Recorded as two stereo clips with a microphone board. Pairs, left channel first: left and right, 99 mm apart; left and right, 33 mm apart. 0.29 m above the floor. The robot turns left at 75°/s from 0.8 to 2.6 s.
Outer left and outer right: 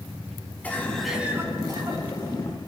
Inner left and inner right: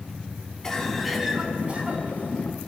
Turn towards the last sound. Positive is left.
turn(degrees=-115)